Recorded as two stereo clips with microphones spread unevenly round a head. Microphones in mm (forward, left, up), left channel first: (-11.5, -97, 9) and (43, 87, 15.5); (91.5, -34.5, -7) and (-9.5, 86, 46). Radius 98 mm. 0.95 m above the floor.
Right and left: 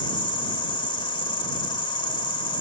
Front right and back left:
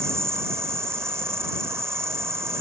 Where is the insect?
170° right.